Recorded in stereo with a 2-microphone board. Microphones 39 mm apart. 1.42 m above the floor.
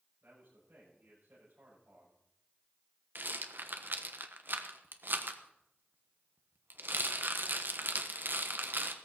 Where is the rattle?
60° right (ahead or behind), 1.3 m.